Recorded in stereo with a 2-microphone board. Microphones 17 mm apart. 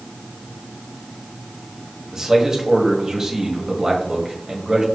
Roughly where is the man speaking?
Right.